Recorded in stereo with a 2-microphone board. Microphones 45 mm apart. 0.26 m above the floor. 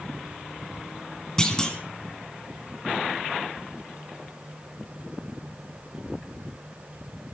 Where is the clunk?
15° left (ahead or behind), 3 m.